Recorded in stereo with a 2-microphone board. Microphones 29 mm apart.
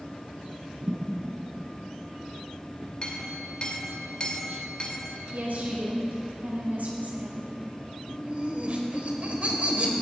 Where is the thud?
75° right (ahead or behind), 3.5 m.